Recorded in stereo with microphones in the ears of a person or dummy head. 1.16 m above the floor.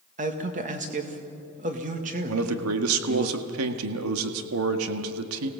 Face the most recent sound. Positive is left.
turn(degrees=-90)